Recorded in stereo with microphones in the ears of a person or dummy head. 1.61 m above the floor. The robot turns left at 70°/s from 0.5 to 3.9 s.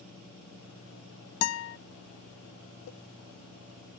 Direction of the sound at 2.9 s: 50° left (ahead or behind).